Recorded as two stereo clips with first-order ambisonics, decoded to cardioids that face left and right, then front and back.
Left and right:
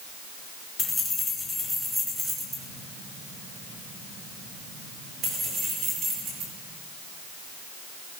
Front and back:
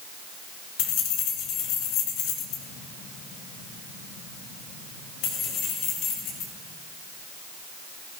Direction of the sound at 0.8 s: 15° left.